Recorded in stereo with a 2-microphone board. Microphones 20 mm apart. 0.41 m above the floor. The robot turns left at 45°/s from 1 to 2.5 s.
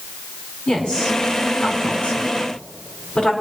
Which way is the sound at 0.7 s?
50° left (ahead or behind).